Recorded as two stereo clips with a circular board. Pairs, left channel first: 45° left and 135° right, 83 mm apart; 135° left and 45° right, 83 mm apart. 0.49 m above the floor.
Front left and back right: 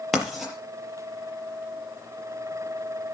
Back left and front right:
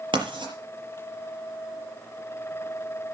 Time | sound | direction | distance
0.1 | writing | 50° right | 5.5 m